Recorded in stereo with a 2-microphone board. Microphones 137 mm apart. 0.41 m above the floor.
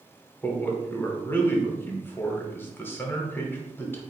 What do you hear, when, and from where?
0.4 s a man speaking: 15° left (ahead or behind), 0.9 m